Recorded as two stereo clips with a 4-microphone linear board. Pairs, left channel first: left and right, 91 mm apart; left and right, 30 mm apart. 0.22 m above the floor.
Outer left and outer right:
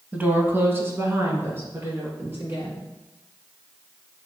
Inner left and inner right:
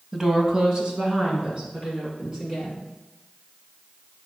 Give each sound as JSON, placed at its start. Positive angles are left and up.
{"t": 0.1, "sound": "a woman speaking", "side_deg": -20, "distance_m": 1.0}